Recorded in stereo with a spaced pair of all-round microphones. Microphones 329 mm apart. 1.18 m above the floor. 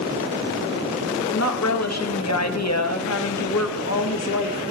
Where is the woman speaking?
50° left (ahead or behind), 1.2 m.